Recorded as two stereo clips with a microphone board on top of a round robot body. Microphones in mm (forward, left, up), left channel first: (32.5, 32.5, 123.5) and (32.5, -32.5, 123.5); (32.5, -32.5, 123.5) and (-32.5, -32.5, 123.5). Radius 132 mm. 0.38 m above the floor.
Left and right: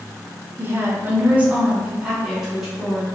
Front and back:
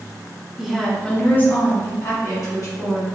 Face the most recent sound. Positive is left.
turn(degrees=-5)